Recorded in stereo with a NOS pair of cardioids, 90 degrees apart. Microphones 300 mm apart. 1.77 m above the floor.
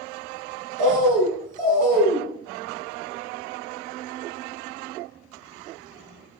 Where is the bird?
55° right, 1.0 m.